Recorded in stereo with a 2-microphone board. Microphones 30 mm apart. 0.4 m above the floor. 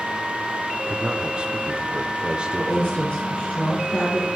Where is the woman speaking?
70° left (ahead or behind), 3.5 m.